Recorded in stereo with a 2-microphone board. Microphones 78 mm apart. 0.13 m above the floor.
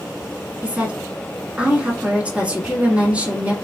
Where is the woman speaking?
20° right (ahead or behind), 1.2 m.